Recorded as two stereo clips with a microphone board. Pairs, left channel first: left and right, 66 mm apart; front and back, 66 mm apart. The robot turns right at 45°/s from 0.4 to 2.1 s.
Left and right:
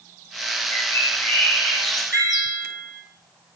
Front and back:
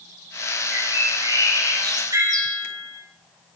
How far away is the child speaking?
No child speaking in this recording.